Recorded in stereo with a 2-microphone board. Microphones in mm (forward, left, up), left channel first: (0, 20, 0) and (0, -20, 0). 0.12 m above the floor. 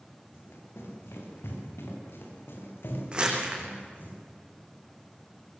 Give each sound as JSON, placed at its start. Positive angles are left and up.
{"t": 0.3, "sound": "running footsteps", "side_deg": 85, "distance_m": 8.0}
{"t": 3.1, "sound": "crumpling", "side_deg": -25, "distance_m": 5.0}